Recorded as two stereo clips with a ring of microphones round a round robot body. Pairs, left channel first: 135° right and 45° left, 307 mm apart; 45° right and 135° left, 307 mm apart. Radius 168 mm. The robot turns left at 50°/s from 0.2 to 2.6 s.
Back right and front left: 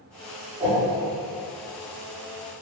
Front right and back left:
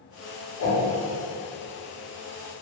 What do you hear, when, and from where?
0.6 s a whoosh: 25° right, 1.0 m; by 0.8 s 35° right, 1.0 m